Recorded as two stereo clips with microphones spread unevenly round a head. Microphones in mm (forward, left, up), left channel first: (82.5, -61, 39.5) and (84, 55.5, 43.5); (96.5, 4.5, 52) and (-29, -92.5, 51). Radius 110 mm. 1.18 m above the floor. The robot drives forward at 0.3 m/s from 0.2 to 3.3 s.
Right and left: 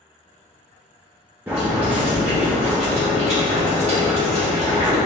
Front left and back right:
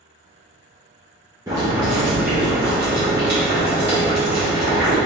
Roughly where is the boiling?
Behind.